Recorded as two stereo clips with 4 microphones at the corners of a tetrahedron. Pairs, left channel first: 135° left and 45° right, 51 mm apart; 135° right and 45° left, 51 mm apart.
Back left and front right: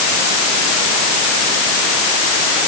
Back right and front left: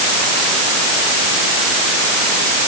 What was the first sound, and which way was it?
Only background noise.